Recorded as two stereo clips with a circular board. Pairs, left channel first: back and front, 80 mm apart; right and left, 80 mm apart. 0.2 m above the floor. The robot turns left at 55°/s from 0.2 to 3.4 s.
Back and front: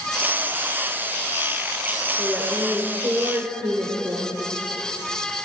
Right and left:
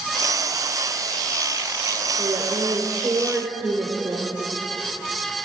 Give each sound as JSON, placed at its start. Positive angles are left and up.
{"t": 2.2, "sound": "a woman speaking", "azimuth_deg": 85, "distance_m": 2.5}